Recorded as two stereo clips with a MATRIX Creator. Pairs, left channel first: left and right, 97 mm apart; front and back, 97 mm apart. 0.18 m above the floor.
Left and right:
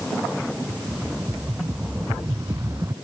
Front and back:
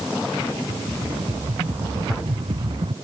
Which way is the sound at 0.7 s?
150° right.